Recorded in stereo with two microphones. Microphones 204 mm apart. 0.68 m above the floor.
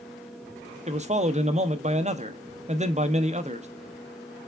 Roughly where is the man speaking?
Right.